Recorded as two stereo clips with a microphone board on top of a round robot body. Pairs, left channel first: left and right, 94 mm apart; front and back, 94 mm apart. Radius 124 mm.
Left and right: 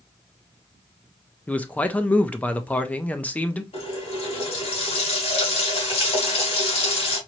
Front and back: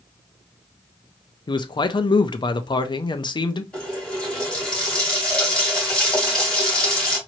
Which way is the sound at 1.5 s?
20° left.